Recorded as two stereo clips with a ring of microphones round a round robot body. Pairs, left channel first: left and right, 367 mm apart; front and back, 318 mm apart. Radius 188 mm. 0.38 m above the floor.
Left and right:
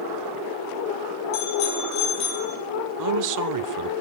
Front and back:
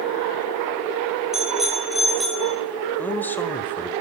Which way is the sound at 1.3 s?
90° left.